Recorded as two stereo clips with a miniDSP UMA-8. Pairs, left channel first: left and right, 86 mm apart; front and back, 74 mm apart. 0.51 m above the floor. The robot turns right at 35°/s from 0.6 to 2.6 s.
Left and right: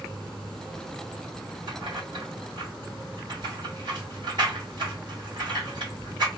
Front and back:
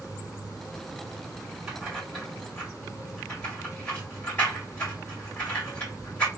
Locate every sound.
1.7 s keys jangling: 100° right, 1.9 m; by 6.3 s 70° right, 1.9 m